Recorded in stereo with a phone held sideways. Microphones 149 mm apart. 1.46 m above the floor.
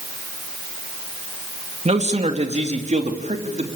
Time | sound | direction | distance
1.9 | a man speaking | 45° right (ahead or behind) | 3 m